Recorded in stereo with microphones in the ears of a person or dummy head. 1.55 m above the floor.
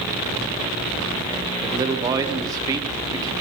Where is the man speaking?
25° right (ahead or behind), 1.0 m.